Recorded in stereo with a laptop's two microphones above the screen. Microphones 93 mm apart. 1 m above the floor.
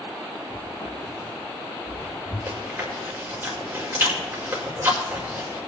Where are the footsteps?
45° left (ahead or behind), 8 m.